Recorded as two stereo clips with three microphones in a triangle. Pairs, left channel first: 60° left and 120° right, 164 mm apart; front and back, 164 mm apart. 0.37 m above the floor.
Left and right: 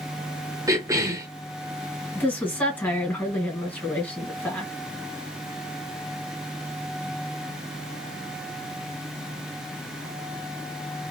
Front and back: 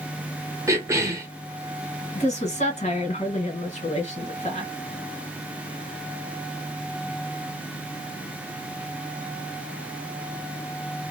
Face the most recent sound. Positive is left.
turn(degrees=-15)